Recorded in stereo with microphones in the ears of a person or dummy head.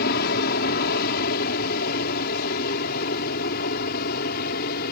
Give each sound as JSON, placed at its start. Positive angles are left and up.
{"t": 0.0, "sound": "an aircraft", "side_deg": 65}